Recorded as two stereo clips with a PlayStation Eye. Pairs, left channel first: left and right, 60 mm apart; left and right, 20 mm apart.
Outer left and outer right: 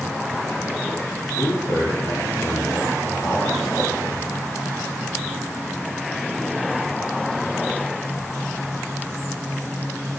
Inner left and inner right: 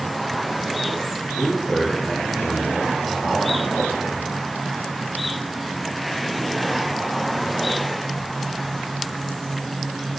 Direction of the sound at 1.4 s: 60° left (ahead or behind).